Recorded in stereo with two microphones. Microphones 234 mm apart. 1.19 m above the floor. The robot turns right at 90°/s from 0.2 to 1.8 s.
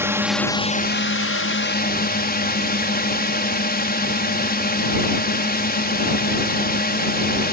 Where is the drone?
10° right; by 7.5 s 130° left.